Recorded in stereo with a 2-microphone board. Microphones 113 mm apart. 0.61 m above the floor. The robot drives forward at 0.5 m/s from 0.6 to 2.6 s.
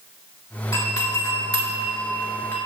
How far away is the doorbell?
About 1.7 m.